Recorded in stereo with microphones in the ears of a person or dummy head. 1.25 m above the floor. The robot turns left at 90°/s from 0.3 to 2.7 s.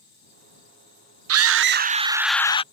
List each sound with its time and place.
1.3 s a scream: 90° right; by 2.6 s 150° left